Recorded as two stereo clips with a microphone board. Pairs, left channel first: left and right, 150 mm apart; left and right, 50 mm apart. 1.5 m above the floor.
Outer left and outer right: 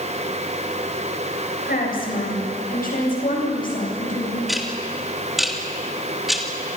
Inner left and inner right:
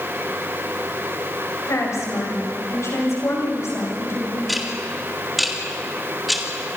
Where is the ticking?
Centre (ahead or behind), 3 m.